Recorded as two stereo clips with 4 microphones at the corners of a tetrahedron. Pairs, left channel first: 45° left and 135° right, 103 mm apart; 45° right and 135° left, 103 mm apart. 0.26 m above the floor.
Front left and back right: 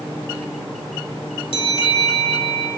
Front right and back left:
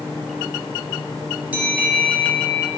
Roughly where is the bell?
Ahead left.